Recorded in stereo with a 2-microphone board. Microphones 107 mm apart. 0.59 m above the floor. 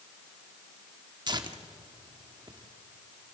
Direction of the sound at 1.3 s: 40° right (ahead or behind).